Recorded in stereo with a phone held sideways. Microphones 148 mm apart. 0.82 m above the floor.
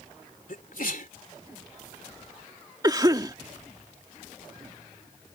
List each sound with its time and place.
0.5 s a sneeze: 70° left (ahead or behind)
2.8 s a cough: 25° right (ahead or behind)